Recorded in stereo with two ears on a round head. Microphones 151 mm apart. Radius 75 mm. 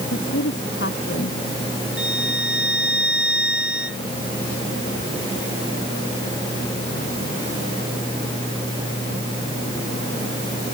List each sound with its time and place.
0.1 s a woman speaking: 70° left (ahead or behind)
2.0 s a violin: 5° right (ahead or behind)